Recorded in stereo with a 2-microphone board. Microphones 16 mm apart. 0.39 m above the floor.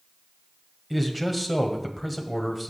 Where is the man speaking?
5° right (ahead or behind), 1.7 m.